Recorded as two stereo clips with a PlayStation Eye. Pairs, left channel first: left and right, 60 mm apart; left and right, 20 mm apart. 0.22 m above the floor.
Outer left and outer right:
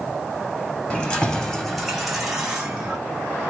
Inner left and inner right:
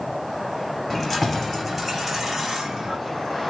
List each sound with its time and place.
0.9 s keys jangling: 20° left (ahead or behind), 1.1 m; by 3.0 s 15° right (ahead or behind), 1.7 m